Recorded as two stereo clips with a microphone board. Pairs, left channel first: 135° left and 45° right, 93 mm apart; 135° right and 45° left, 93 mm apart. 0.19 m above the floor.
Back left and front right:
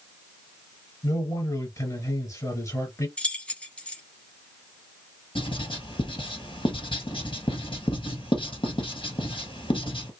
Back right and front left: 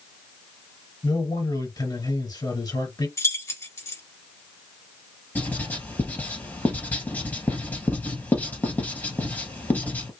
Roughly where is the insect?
No insect in this recording.